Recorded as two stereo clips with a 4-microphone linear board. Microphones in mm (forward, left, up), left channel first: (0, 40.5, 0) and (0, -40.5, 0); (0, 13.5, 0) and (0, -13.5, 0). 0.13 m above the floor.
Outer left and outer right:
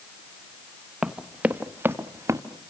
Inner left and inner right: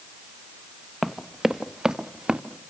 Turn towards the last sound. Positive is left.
turn(degrees=-35)  # may be behind; listen again after turning